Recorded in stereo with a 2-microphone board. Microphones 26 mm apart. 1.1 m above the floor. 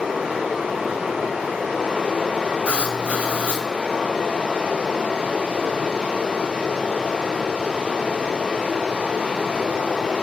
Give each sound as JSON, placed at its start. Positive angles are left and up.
{"t": 0.0, "sound": "running water", "side_deg": -50, "distance_m": 3.0}
{"t": 2.6, "sound": "writing", "side_deg": -50, "distance_m": 2.0}